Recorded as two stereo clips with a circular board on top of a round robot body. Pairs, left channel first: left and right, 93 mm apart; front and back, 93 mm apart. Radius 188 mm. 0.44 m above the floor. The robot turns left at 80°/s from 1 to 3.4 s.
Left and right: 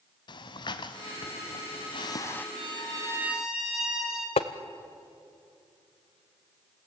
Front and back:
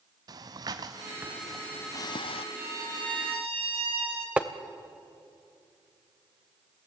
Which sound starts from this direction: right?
A violin, at 2.5 s.